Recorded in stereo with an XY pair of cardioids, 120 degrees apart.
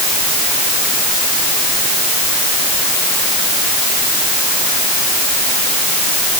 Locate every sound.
Only background noise.